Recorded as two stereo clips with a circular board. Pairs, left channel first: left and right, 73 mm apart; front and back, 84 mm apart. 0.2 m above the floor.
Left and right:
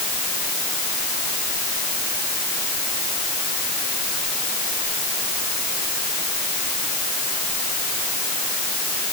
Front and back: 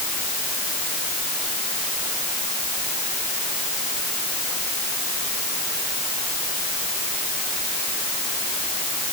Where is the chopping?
I don't hear chopping.